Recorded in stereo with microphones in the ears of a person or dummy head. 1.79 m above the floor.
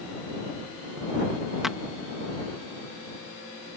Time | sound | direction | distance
1.6 | a clap | 5° right (ahead or behind) | ?